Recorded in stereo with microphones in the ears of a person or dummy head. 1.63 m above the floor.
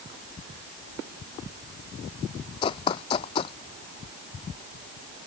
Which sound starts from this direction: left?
Running footsteps, at 2.6 s.